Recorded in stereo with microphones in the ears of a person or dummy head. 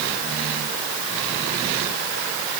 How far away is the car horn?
No car horn in this recording.